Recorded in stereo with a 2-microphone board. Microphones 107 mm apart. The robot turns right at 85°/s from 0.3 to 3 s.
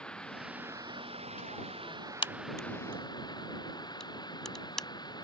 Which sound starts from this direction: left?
A crack, at 2.2 s.